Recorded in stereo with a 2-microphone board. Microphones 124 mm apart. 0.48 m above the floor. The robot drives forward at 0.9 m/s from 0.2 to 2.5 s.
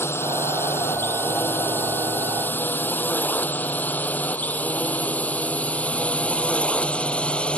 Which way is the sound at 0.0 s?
20° left (ahead or behind).